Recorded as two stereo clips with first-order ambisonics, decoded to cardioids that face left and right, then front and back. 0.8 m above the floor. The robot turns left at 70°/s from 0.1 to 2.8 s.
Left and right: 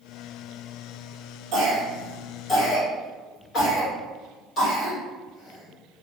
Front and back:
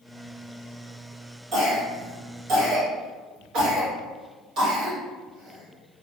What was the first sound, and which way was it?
A cough, 125° right.